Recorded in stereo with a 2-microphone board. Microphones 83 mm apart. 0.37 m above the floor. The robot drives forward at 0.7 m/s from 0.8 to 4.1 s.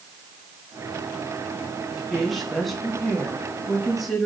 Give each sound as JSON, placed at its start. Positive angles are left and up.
{"t": 1.9, "sound": "a woman speaking", "side_deg": 0, "distance_m": 4.0}